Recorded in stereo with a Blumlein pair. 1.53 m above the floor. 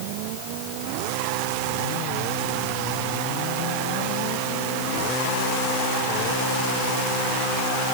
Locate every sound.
Only background noise.